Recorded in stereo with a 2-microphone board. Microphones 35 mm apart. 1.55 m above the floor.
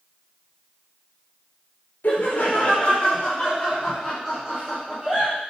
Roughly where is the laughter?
Left.